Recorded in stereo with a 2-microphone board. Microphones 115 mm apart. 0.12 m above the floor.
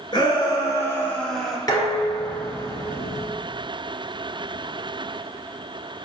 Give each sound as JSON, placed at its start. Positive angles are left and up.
{"t": 0.1, "sound": "a shout", "side_deg": 40, "distance_m": 1.5}
{"t": 1.7, "sound": "dishes clattering", "side_deg": 35, "distance_m": 1.2}